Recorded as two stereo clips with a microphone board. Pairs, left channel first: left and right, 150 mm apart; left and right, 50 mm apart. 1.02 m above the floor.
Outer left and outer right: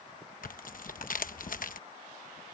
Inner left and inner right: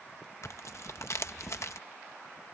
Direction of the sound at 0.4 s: 65° left (ahead or behind).